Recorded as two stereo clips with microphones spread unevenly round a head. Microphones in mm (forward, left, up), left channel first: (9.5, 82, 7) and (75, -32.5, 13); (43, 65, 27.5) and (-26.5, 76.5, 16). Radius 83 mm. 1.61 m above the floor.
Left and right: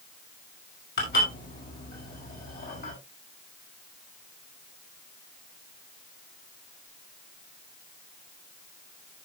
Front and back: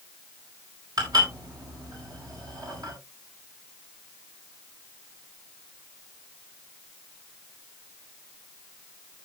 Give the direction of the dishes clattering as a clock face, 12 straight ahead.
7 o'clock.